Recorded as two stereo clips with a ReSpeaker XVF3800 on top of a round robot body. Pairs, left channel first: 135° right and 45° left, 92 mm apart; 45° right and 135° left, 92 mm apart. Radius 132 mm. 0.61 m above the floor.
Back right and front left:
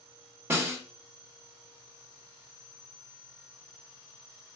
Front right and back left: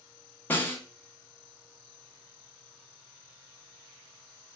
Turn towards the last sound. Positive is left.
turn(degrees=5)